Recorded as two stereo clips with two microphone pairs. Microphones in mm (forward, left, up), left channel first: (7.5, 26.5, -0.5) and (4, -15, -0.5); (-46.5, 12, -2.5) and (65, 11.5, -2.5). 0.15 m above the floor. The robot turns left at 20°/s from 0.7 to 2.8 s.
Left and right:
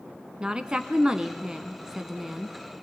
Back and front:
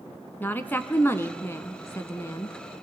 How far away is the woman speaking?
About 1.1 m.